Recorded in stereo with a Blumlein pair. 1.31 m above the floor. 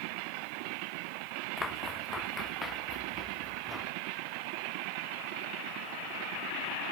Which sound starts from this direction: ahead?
Footsteps, at 1.6 s.